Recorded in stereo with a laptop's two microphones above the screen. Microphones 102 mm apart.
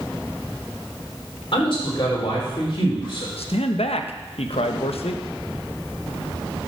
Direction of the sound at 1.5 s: 60° left (ahead or behind).